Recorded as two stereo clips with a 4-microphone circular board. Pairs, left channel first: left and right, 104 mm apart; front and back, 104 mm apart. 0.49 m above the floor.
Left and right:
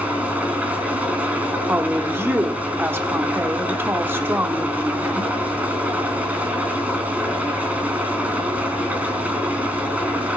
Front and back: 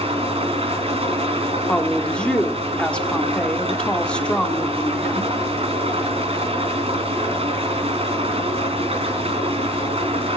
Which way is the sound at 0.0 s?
165° right.